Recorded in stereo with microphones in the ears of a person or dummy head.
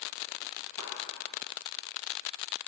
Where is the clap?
80° right, 4 m.